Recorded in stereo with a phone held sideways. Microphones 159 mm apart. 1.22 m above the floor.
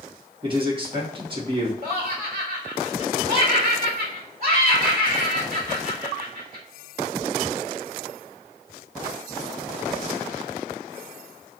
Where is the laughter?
45° right (ahead or behind), 1.0 m.